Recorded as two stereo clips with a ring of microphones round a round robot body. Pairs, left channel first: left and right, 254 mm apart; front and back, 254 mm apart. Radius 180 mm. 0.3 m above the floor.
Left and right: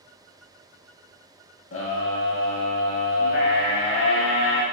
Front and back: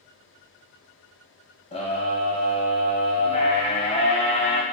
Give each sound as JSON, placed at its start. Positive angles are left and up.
{"t": 1.7, "sound": "a scream", "azimuth_deg": 65, "distance_m": 1.6}